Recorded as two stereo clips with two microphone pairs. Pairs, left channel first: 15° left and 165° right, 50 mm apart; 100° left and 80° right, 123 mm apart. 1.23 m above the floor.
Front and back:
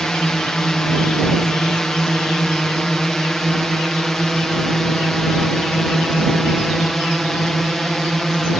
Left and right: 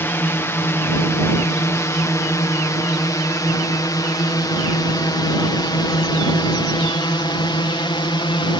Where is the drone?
75° left; by 8.6 s 100° left.